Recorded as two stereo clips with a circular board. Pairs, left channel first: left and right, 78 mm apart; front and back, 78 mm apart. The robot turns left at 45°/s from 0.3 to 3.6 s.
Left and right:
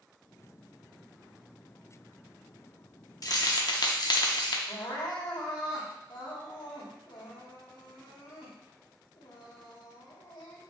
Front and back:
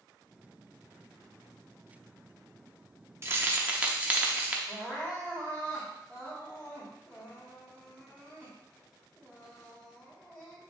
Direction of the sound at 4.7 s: 75° left.